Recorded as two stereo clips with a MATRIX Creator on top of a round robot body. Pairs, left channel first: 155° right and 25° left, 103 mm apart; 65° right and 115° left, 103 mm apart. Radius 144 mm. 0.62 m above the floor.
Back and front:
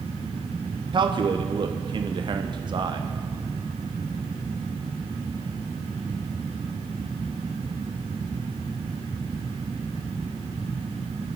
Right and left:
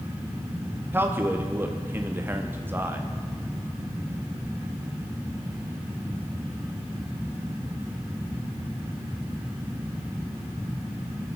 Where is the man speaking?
50° left, 1.1 m.